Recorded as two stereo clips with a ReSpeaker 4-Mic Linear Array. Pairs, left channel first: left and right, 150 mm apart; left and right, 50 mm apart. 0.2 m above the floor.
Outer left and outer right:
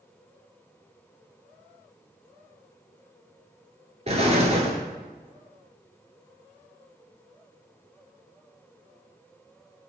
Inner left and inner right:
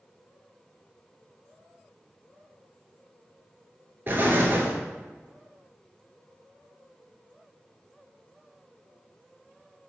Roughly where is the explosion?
Right.